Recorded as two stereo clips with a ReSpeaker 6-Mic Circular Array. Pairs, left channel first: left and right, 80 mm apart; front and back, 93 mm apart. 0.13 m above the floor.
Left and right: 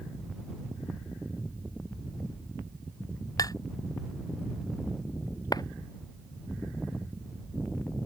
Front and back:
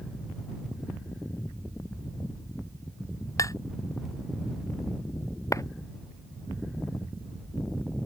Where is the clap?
55° left.